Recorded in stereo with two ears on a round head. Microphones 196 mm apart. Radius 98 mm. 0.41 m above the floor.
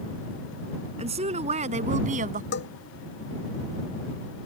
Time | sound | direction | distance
1.0 | a woman speaking | 30° right (ahead or behind) | ?
2.5 | a bell | 55° left (ahead or behind) | ?